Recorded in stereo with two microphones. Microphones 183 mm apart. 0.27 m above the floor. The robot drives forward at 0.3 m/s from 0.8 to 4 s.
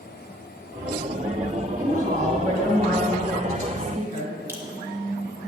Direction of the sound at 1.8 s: 50° right (ahead or behind).